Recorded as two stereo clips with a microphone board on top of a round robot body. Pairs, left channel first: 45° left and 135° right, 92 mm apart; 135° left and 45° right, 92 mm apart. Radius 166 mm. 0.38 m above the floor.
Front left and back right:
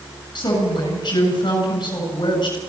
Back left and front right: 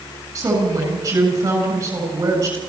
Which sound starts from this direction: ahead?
A woman speaking, at 0.3 s.